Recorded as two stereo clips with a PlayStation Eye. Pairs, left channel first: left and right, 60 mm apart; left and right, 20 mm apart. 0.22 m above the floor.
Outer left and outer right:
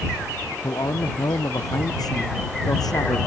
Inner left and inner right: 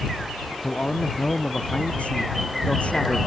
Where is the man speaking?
80° left; by 3.2 s 85° left.